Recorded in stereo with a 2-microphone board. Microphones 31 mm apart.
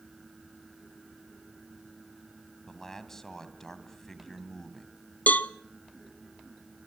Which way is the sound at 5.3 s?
65° left (ahead or behind).